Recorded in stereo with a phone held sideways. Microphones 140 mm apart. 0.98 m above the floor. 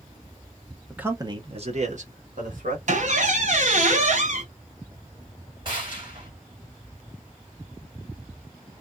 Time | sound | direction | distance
0.9 | a man speaking | 5° right (ahead or behind) | 0.6 m
2.9 | a squeak | 60° right (ahead or behind) | 0.9 m
5.7 | a gunshot | 35° right (ahead or behind) | 1.7 m